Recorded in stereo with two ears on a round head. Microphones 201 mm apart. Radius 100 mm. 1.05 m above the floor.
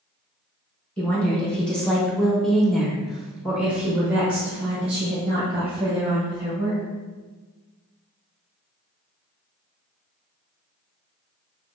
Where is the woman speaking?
5° left (ahead or behind), 1.5 m; by 6.8 s 10° right (ahead or behind), 2 m.